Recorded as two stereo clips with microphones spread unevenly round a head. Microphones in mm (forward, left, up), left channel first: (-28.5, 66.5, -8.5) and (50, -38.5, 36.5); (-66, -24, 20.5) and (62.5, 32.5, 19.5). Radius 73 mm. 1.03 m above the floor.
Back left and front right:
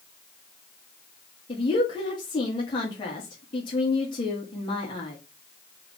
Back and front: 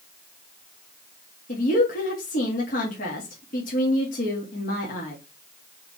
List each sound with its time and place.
1.5 s a woman speaking: 175° left, 2.5 m